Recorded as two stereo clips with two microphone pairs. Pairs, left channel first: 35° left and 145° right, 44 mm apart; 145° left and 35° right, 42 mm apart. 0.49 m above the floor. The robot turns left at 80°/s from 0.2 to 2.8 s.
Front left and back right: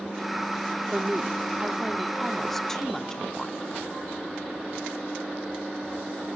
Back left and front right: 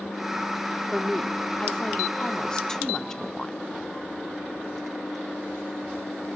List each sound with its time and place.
0.9 s a woman speaking: 115° right, 0.8 m; by 3.7 s 90° left, 0.8 m